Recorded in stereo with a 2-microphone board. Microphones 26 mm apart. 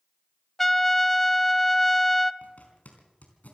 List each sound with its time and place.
0.6 s a trumpet: 5° left (ahead or behind), 0.6 m
2.4 s a zipper: 75° left (ahead or behind), 4 m